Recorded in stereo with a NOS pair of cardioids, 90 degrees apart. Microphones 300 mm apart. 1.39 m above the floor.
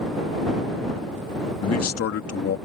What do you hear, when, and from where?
1.6 s a man speaking: 55° left